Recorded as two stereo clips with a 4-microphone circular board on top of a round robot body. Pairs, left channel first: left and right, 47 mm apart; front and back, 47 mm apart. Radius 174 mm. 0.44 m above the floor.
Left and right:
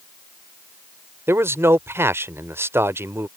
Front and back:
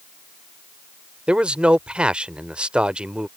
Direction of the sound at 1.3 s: 115° right.